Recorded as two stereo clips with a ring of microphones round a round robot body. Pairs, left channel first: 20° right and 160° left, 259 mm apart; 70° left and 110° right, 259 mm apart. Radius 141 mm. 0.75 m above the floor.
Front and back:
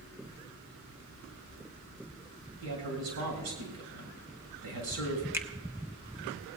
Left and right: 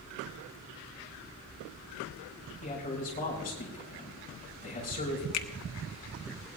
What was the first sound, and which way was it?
A man speaking, 125° left.